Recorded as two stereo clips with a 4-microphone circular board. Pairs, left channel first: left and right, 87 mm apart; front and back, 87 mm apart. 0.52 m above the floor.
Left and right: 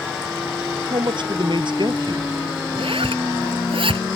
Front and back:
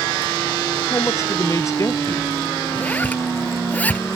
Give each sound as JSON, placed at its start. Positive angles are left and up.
{"t": 0.9, "sound": "a man speaking", "azimuth_deg": -55}
{"t": 2.8, "sound": "a zipper", "azimuth_deg": -75}